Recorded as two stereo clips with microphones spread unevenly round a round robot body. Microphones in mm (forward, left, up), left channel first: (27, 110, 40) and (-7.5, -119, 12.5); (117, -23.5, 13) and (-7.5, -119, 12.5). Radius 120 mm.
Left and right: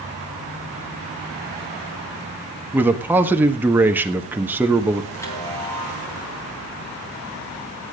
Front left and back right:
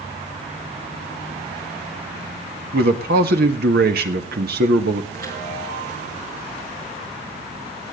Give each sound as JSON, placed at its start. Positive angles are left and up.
{"t": 2.7, "sound": "a man speaking", "azimuth_deg": 180, "distance_m": 1.4}
{"t": 5.1, "sound": "a chime", "azimuth_deg": 160, "distance_m": 3.5}